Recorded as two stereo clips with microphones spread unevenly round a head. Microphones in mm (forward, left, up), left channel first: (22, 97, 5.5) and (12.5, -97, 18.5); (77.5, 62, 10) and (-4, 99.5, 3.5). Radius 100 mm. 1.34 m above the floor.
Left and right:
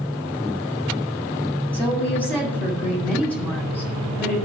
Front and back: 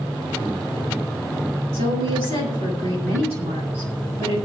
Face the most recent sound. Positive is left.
turn(degrees=170)